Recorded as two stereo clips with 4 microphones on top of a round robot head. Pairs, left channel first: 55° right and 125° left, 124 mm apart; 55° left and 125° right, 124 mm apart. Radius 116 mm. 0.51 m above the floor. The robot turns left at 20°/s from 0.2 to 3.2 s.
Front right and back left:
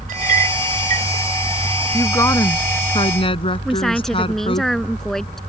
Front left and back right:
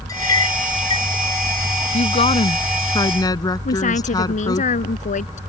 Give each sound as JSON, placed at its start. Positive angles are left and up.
{"t": 0.1, "sound": "a clink", "azimuth_deg": 120}
{"t": 1.9, "sound": "a woman speaking", "azimuth_deg": 20}
{"t": 3.6, "sound": "a woman speaking", "azimuth_deg": 30}